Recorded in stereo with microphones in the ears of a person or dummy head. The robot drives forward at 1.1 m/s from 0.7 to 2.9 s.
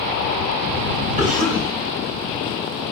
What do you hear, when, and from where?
1.2 s a cough: 45° right (ahead or behind), 2.5 m; by 1.7 s 55° right (ahead or behind), 1.9 m